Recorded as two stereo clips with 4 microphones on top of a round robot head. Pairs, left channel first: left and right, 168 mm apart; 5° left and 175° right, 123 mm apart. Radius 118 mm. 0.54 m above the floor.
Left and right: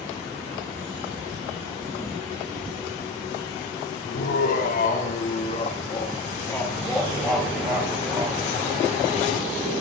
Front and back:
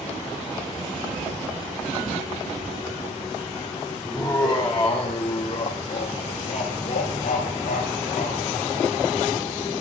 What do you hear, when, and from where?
4.0 s laughter: 85° left, 2 m; by 8.4 s 35° right, 2 m